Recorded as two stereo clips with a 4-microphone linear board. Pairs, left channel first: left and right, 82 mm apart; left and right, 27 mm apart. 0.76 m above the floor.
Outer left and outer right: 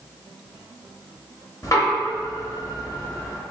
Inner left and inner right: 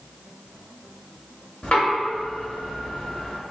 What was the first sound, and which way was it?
Knocking, 45° left (ahead or behind).